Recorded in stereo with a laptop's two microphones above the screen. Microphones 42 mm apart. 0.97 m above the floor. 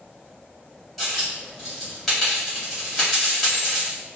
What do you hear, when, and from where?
1.0 s a dropped coin: centre (ahead or behind), 2 m